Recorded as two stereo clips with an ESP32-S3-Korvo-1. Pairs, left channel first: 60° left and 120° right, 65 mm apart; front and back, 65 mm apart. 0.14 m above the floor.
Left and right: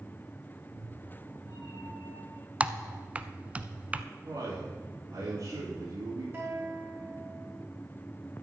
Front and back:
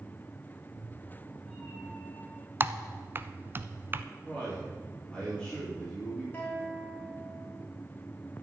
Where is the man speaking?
75° right, 7 m.